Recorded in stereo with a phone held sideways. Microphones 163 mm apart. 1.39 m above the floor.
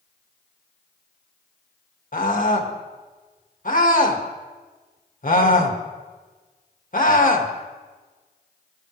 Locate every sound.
2.1 s a scream: 55° left (ahead or behind), 1.8 m